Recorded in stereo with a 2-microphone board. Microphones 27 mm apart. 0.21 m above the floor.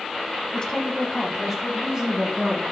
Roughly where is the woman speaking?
Left.